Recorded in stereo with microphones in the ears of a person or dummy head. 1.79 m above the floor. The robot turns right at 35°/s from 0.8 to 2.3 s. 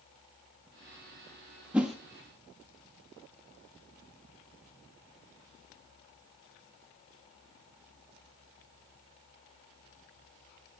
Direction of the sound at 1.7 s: 5° right (ahead or behind).